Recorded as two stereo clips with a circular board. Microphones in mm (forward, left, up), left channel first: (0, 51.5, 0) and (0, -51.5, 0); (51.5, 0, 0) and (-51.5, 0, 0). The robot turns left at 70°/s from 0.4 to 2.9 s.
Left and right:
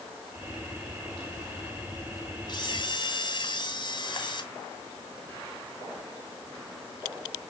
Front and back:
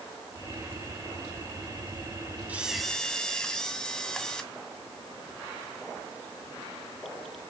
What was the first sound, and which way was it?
A camera shutter, 110° left.